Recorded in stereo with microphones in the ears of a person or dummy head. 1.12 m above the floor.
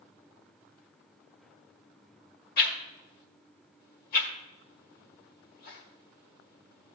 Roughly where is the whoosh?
Left.